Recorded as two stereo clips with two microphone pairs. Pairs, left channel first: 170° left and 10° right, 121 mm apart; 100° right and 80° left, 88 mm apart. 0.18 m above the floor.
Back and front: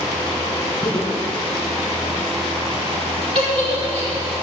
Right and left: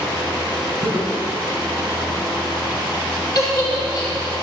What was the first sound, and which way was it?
Laughter, 115° left.